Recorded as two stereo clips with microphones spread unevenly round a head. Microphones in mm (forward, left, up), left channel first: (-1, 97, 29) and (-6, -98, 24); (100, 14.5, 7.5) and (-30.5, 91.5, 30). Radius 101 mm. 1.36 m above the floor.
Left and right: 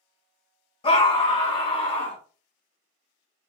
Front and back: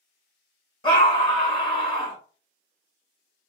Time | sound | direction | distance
0.8 | a scream | 25° left | 1.5 m